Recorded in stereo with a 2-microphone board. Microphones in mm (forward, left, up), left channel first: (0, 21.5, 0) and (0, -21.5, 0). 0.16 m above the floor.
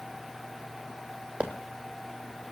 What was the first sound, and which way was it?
A squeak, 35° right (ahead or behind).